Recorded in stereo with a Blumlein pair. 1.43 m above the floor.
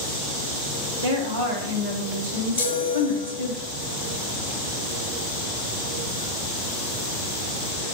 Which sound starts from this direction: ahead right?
A woman speaking, at 1.0 s.